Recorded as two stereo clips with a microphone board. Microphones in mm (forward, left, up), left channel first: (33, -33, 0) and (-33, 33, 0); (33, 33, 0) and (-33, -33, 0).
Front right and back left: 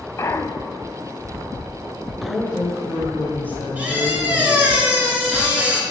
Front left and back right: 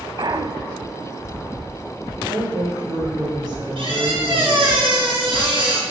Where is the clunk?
100° right, 0.5 m.